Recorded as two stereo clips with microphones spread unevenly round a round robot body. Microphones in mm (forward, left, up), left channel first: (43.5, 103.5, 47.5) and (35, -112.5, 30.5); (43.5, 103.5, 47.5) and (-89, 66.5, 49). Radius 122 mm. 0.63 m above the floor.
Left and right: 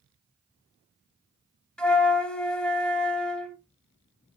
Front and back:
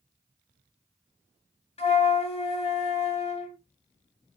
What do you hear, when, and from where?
1.8 s a flute: straight ahead, 1.2 m